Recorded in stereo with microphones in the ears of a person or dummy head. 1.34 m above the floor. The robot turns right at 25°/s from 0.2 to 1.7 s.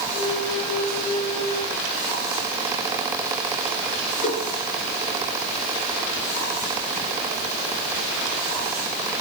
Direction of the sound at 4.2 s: 45° left (ahead or behind).